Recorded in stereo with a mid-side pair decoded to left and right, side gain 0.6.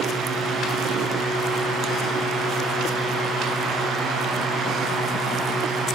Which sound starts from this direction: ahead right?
A fan, at 0.0 s.